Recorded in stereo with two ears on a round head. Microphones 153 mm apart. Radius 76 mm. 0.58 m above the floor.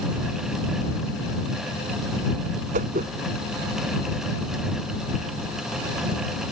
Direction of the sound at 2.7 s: 50° right (ahead or behind).